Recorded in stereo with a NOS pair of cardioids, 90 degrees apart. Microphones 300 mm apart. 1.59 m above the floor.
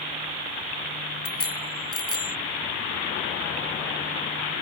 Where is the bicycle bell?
50° left.